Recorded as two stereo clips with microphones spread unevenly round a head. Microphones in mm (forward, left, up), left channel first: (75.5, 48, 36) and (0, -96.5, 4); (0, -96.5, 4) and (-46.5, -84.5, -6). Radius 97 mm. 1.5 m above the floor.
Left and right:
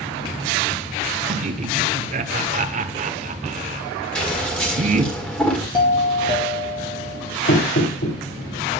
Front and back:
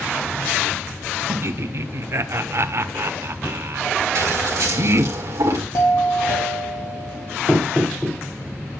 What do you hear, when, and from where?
1.3 s laughter: 170° right, 0.9 m
4.2 s scissors: 140° left, 1.7 m
5.7 s a doorbell: straight ahead, 3.5 m
7.5 s knocking: 60° left, 2.5 m